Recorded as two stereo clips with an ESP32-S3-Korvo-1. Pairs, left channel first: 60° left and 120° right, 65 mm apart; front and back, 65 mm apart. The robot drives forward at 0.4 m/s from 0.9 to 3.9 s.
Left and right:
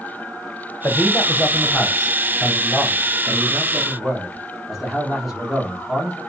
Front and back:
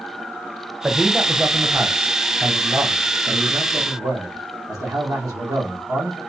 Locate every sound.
0.8 s a man speaking: 95° left, 0.8 m; by 6.2 s 155° left, 1.5 m